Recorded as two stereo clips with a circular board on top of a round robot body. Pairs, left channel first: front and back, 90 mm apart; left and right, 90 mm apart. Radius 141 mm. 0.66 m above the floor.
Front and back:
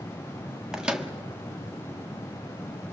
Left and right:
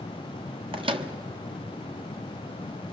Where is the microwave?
100° right, 1.4 m.